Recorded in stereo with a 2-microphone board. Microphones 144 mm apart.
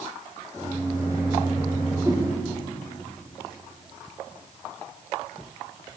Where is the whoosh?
20° right (ahead or behind), 3.5 m.